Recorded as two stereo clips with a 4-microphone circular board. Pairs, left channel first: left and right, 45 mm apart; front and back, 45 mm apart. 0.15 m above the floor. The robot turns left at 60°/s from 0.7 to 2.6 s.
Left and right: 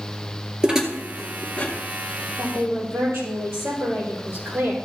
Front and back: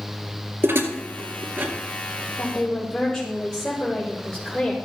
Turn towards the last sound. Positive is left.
turn(degrees=-75)